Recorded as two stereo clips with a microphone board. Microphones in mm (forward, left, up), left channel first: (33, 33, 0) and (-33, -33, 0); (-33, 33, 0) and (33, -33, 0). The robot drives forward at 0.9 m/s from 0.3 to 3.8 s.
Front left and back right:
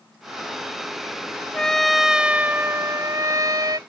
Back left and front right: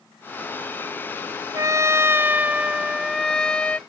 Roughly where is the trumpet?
Ahead right.